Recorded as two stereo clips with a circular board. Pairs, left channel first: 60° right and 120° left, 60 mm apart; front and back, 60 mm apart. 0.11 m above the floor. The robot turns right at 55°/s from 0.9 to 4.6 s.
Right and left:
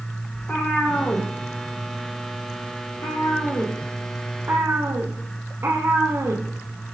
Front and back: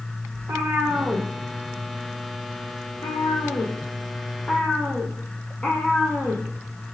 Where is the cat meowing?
135° right, 1.9 m; by 7.0 s 70° left, 1.9 m.